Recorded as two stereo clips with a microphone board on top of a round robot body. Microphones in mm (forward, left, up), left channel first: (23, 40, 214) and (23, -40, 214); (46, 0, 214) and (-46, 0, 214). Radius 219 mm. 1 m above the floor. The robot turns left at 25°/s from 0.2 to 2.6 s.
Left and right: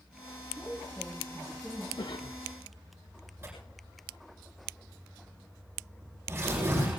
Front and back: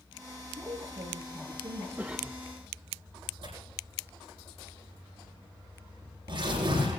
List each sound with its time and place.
0.6 s a woman speaking: 160° right, 1.9 m; by 1.9 s 170° left, 1.9 m
2.0 s a cough: 110° left, 0.8 m; by 2.4 s 100° left, 0.8 m
3.4 s tearing paper: 150° right, 9 m